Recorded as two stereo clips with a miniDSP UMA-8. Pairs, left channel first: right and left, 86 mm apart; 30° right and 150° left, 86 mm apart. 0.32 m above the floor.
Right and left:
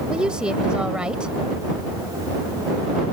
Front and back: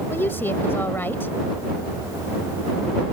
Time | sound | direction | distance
0.1 | a woman speaking | 20° left | ?